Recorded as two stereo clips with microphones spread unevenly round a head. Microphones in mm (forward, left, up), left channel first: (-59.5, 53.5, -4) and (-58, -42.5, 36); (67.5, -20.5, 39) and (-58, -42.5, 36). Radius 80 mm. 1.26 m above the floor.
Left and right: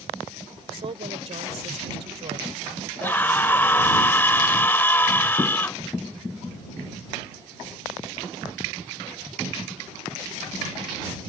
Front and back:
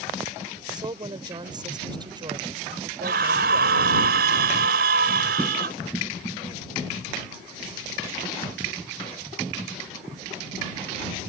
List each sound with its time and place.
0.7 s a woman speaking: 110° right
3.0 s a scream: 165° left